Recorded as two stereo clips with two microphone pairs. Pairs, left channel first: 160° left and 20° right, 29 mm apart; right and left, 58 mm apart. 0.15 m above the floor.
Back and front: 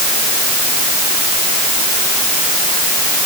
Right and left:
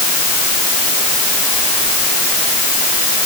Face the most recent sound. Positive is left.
No sound to turn to.